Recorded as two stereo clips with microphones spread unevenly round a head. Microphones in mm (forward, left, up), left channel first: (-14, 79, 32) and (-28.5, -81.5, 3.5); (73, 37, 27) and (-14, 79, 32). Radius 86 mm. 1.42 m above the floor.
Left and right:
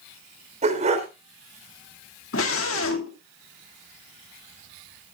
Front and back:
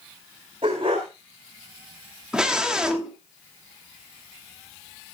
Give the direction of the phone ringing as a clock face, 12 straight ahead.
I don't hear a phone ringing.